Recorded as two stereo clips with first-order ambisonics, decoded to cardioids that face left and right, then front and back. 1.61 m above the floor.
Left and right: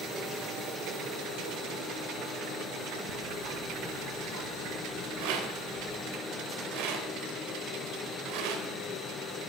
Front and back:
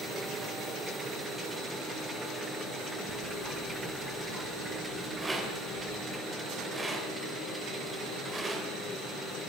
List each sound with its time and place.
3.1 s ticking: 120° right, 2.5 m
5.2 s a rattle: 100° right, 4 m